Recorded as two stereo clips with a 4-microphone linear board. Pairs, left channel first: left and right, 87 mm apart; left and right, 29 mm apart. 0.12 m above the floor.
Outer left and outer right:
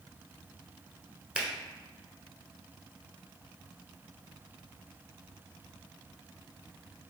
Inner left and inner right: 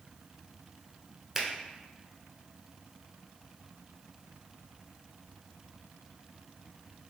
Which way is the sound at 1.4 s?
15° right (ahead or behind).